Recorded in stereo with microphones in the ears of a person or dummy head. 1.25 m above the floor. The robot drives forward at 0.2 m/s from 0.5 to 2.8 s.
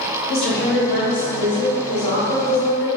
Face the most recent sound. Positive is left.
turn(degrees=30)  # may be behind; listen again after turning